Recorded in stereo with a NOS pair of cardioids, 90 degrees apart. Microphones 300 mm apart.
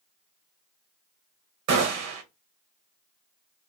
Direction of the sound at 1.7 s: 70° right.